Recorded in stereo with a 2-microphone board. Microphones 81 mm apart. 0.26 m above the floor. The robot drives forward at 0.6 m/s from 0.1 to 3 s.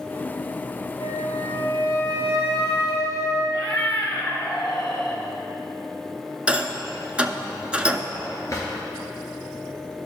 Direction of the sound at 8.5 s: 45° left (ahead or behind).